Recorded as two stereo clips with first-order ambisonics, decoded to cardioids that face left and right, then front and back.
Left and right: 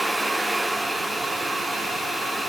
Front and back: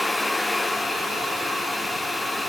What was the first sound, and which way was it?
Only background noise.